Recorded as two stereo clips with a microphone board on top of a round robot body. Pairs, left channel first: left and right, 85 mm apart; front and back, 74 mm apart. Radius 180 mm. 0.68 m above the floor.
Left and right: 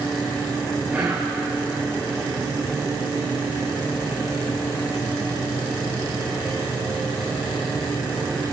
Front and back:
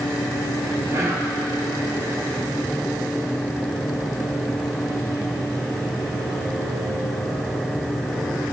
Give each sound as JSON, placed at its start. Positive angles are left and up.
{"t": 0.9, "sound": "whispering", "azimuth_deg": -170, "distance_m": 2.5}